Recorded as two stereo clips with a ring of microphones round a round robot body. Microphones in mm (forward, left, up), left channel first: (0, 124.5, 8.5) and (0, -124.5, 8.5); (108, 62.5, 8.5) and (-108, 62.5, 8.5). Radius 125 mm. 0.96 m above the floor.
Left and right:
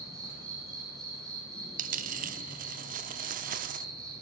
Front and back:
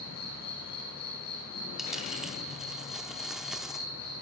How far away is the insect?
About 6.5 m.